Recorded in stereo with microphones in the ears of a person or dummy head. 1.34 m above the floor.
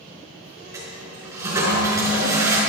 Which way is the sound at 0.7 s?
20° right (ahead or behind).